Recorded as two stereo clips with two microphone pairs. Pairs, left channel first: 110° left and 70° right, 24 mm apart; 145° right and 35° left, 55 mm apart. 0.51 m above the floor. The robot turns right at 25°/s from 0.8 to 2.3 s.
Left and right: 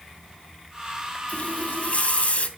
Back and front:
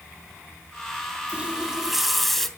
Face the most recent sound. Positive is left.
turn(degrees=125)